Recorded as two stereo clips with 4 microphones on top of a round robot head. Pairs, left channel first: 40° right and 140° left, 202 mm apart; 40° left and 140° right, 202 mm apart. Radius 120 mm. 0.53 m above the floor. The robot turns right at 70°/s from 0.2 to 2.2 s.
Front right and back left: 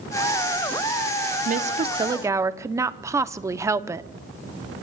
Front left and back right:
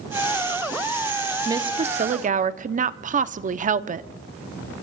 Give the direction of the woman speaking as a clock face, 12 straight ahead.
7 o'clock.